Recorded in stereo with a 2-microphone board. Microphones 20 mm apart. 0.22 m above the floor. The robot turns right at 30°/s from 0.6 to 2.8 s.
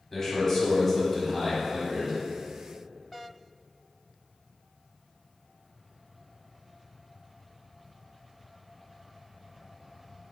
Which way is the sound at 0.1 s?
20° left (ahead or behind).